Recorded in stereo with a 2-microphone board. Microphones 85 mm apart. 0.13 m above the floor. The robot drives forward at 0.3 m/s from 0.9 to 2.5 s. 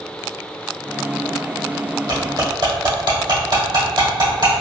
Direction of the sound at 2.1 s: 60° right (ahead or behind).